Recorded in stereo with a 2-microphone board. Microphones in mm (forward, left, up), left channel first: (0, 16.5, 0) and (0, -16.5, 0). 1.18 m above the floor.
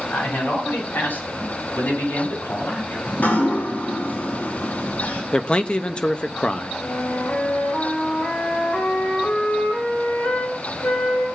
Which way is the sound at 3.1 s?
75° left (ahead or behind).